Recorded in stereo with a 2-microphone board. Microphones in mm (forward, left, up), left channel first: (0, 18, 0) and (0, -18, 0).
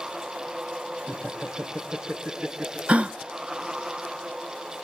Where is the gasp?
35° right (ahead or behind), 0.8 m.